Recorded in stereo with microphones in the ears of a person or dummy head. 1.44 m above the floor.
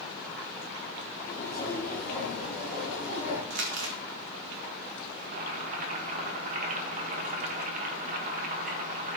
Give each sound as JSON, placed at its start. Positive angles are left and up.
{"t": 1.3, "sound": "footsteps", "side_deg": 15, "distance_m": 2.5}
{"t": 3.5, "sound": "crumpling", "side_deg": -60, "distance_m": 1.4}
{"t": 5.2, "sound": "boiling", "side_deg": -50, "distance_m": 1.3}